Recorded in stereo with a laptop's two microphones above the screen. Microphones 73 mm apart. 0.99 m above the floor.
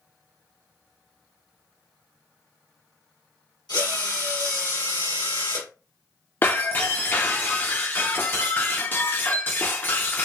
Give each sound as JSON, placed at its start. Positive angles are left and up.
{"t": 3.7, "sound": "a drill", "side_deg": 75, "distance_m": 1.4}
{"t": 6.4, "sound": "breaking glass", "side_deg": 30, "distance_m": 0.5}